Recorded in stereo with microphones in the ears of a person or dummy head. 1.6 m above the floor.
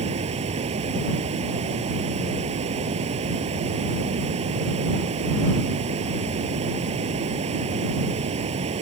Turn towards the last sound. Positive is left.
turn(degrees=-40)  # may be behind; listen again after turning